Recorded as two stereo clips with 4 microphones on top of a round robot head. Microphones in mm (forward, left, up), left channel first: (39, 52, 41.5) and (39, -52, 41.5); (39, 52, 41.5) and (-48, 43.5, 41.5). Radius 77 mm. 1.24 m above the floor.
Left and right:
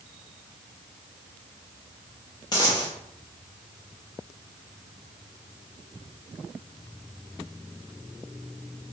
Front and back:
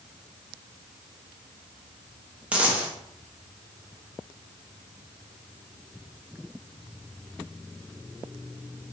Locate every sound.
2.5 s a dropped coin: 120° left, 0.6 m